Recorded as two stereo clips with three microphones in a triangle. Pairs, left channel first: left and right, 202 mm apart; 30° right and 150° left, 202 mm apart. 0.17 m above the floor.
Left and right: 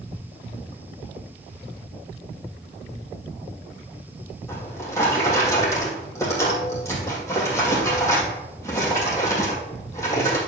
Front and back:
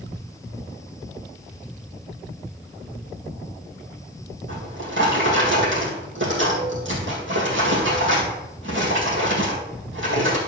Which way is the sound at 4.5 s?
165° left.